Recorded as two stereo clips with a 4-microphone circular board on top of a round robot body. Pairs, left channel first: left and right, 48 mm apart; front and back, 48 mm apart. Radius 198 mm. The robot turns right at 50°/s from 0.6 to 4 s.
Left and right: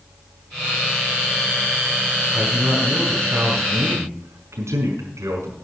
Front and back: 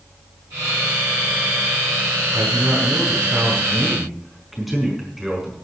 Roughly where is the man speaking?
Behind.